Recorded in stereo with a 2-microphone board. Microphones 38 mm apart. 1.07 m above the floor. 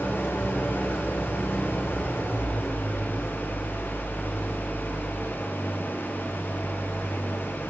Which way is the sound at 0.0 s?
80° left.